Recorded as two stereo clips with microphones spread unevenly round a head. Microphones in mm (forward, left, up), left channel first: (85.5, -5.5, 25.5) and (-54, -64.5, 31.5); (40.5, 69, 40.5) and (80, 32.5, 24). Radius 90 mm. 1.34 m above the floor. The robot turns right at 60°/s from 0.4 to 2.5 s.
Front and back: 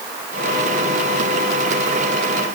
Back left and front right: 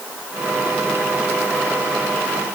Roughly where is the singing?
No singing in this recording.